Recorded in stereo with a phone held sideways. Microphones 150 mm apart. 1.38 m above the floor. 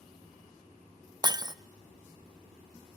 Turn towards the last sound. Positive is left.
turn(degrees=-25)  # may be behind; listen again after turning